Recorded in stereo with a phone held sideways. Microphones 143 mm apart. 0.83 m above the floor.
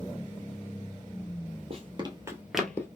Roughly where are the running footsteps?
Right.